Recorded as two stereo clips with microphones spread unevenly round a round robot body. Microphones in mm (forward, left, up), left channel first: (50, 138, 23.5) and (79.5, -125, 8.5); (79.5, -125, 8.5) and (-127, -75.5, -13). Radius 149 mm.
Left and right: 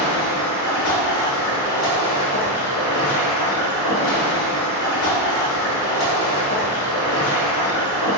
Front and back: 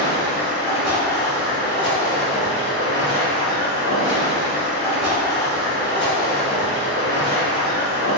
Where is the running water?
85° left, 0.8 m.